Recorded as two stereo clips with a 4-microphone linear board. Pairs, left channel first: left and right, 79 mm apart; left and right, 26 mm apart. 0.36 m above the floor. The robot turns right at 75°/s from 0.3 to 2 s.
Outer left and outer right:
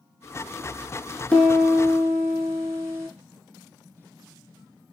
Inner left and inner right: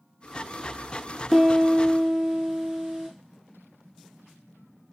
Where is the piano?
160° left, 1.0 m; by 3.1 s 145° right, 1.0 m.